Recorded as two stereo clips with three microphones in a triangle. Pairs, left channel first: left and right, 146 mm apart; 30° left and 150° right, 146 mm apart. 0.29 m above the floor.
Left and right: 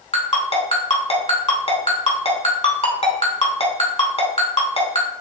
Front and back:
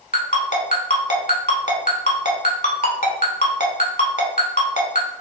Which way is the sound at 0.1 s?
45° left.